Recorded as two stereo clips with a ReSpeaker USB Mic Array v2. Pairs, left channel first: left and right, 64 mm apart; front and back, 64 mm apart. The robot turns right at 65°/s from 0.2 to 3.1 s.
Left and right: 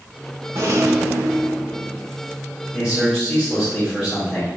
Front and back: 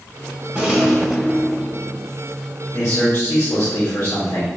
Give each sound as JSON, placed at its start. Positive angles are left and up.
{"t": 0.6, "sound": "a rattle", "azimuth_deg": -115, "distance_m": 0.8}
{"t": 2.7, "sound": "a man speaking", "azimuth_deg": -35, "distance_m": 1.8}